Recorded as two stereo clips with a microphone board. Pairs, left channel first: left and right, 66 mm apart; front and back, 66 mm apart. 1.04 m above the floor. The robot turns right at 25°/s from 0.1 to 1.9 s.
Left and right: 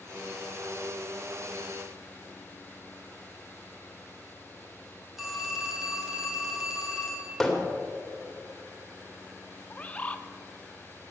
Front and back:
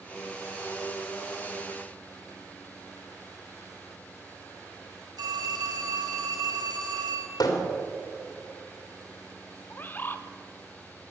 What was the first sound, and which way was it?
A phone ringing, 175° right.